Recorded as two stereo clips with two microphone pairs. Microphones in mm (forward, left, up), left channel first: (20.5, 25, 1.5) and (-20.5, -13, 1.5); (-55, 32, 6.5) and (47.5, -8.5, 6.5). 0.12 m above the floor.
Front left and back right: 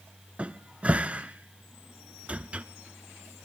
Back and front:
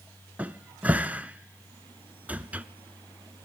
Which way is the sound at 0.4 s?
90° right.